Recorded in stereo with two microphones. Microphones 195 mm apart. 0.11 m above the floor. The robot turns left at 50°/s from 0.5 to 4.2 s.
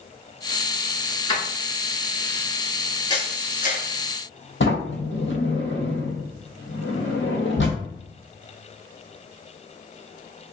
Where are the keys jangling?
25° left (ahead or behind), 0.9 m; by 2.5 s 10° left (ahead or behind), 0.9 m.